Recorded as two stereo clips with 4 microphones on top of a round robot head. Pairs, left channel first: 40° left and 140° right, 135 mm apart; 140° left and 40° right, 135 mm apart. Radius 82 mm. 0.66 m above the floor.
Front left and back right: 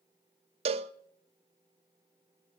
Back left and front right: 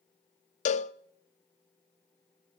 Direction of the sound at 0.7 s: 175° left.